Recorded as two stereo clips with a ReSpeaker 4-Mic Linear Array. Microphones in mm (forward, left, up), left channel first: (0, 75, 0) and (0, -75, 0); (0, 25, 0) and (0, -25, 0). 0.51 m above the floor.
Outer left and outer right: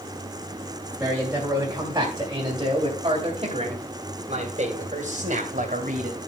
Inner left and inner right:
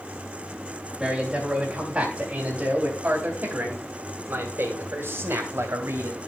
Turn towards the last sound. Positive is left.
turn(degrees=-65)  # may be behind; listen again after turning